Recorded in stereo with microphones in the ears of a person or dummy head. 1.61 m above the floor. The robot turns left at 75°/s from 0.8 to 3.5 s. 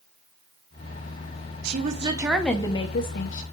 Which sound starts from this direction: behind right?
A woman speaking, at 1.6 s.